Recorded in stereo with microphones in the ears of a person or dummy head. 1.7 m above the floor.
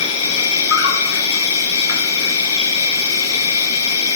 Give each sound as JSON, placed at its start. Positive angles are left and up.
{"t": 0.0, "sound": "an insect", "side_deg": 70, "distance_m": 1.9}